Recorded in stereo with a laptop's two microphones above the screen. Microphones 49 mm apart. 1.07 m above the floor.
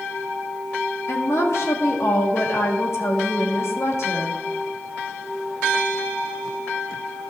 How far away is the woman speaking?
About 1.7 m.